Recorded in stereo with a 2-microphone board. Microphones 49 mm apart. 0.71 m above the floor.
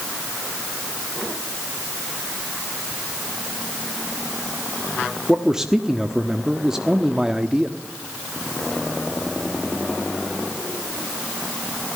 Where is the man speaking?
10° right (ahead or behind), 1.2 m.